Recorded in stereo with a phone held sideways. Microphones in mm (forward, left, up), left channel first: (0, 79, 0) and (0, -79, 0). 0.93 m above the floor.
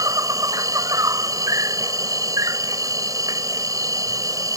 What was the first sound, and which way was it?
An insect, 20° right (ahead or behind).